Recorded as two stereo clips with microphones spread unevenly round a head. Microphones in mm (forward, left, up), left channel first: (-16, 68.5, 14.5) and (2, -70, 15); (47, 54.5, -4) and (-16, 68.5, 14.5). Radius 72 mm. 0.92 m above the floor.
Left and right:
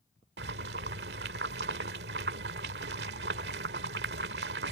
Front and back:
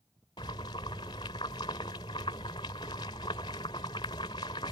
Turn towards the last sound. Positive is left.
turn(degrees=-65)